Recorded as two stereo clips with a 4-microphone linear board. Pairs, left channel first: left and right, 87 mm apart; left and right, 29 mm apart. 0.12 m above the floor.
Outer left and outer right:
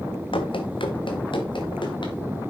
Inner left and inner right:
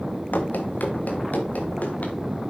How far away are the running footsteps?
About 2 m.